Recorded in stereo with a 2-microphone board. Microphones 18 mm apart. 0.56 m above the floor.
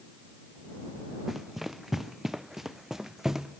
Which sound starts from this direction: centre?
Running footsteps, at 1.3 s.